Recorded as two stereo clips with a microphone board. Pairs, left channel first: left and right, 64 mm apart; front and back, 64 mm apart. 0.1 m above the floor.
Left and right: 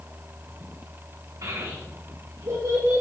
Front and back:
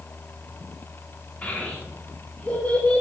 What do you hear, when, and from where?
1.4 s a child speaking: 70° right, 5 m; by 3.0 s 60° right, 5 m